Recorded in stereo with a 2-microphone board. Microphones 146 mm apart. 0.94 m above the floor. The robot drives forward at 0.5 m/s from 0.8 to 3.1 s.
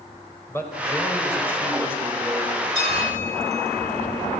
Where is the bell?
55° left (ahead or behind), 6 m; by 4.1 s 50° left (ahead or behind), 6 m.